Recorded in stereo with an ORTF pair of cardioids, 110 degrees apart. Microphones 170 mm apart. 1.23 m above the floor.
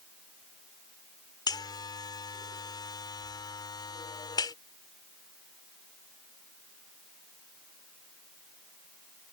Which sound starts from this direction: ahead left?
A buzzer, at 1.5 s.